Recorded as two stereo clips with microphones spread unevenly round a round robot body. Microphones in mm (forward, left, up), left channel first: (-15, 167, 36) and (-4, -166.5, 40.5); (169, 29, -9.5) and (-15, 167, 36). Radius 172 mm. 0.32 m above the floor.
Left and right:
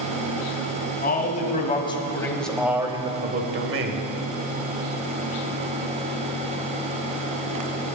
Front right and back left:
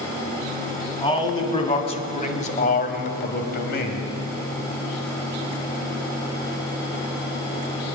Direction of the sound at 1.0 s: 30° left.